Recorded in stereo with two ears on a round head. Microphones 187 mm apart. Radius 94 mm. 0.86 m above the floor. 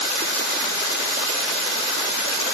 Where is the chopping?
I don't hear chopping.